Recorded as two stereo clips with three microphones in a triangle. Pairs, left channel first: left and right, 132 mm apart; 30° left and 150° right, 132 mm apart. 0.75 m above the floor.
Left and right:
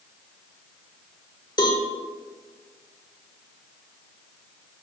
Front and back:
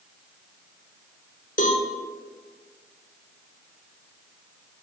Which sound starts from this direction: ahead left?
A cowbell, at 1.6 s.